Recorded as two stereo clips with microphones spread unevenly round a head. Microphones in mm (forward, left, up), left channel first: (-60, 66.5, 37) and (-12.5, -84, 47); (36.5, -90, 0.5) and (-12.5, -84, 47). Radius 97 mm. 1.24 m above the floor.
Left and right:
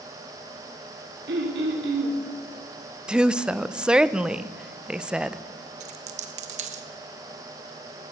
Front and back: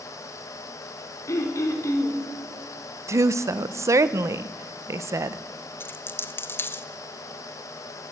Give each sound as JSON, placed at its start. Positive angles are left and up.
{"t": 1.3, "sound": "throat clearing", "azimuth_deg": -35, "distance_m": 2.0}
{"t": 3.1, "sound": "a woman speaking", "azimuth_deg": -155, "distance_m": 0.6}
{"t": 5.8, "sound": "a dropped coin", "azimuth_deg": -90, "distance_m": 0.7}